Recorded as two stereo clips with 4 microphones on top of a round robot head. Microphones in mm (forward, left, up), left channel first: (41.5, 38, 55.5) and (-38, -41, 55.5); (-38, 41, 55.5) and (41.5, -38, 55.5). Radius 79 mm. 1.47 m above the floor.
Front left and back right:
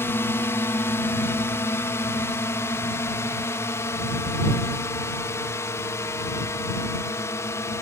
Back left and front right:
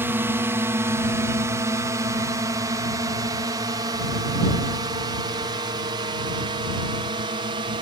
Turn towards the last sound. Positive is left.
turn(degrees=-15)